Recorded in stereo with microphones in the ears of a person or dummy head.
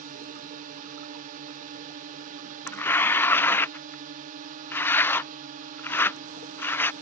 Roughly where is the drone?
Right.